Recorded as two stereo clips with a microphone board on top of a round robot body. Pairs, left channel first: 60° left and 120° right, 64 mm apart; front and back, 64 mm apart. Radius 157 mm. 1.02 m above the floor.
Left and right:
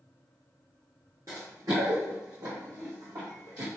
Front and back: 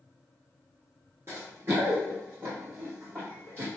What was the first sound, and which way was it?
Running footsteps, 145° right.